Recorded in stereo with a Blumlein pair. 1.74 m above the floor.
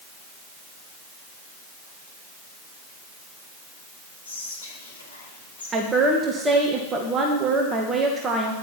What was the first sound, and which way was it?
Whispering, 65° left.